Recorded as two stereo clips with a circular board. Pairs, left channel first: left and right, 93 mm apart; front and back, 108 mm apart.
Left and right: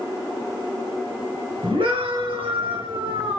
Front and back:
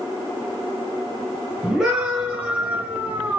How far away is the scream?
About 6 m.